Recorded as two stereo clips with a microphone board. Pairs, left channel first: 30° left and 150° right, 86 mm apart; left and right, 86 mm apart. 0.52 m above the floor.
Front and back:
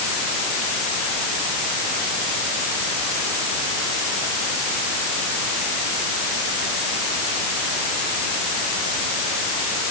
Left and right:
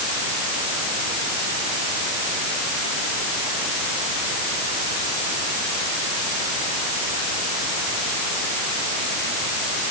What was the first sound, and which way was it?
Only background noise.